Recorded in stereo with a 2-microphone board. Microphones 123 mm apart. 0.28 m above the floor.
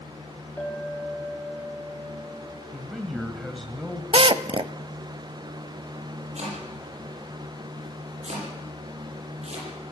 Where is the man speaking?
Centre (ahead or behind), 1.8 m.